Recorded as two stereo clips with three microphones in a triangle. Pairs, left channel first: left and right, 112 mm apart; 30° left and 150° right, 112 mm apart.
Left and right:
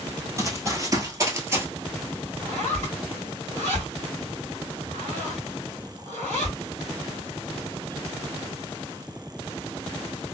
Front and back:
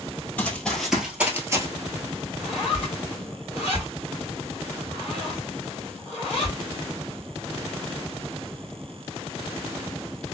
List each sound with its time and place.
0.4 s running footsteps: 40° right, 1.2 m; by 1.7 s 130° right, 1.0 m
2.4 s a zipper: 80° right, 1.9 m